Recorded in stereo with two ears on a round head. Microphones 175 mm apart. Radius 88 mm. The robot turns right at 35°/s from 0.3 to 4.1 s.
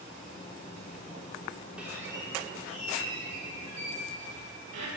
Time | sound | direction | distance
1.8 | a squeak | 175° right | 3.5 m